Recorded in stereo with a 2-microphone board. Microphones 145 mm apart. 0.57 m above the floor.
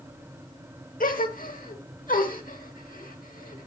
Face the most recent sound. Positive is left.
turn(degrees=70)  # may be behind; listen again after turning